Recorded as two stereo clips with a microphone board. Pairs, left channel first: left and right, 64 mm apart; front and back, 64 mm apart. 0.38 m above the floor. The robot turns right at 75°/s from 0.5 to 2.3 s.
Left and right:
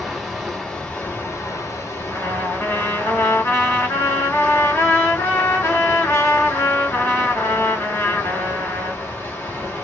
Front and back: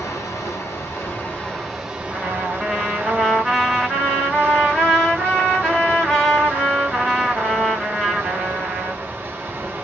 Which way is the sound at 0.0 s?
Straight ahead.